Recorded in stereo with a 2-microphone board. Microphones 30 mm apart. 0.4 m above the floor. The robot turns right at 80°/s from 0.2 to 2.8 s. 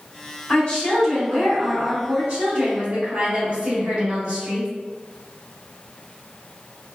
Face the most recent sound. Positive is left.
turn(degrees=-50)